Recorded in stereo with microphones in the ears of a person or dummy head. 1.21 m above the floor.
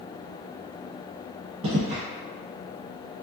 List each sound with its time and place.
1.6 s footsteps: 35° right (ahead or behind), 1.8 m